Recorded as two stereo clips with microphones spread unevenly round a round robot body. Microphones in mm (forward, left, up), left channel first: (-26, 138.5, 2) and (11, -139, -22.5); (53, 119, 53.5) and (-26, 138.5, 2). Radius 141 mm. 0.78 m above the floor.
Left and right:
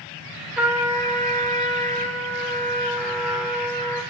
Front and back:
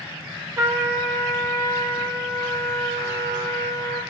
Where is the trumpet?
170° right, 3 m.